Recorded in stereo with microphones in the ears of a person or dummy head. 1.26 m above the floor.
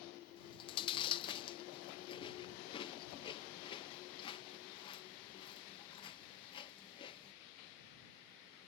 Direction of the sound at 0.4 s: 25° left (ahead or behind).